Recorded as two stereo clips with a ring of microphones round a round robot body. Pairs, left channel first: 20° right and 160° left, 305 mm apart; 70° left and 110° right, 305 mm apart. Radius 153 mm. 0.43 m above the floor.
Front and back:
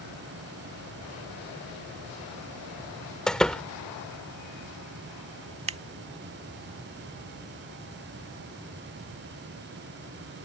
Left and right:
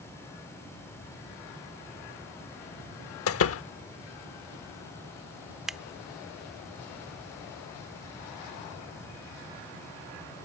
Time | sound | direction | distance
3.3 | a door slam | 65° left | ?
5.7 | scissors | 160° left | ?